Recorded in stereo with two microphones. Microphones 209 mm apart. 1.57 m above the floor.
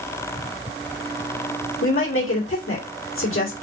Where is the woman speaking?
85° left, 2 m.